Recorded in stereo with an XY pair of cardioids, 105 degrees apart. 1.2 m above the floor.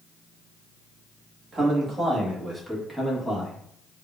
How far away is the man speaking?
About 1.8 m.